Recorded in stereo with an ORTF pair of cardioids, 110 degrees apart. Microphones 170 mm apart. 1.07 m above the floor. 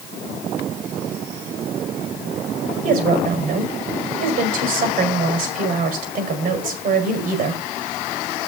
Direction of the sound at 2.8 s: 60° right.